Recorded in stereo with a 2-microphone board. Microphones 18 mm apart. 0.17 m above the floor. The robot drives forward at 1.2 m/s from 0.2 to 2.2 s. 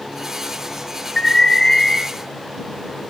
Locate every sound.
1.2 s an alarm: 25° left (ahead or behind), 2.5 m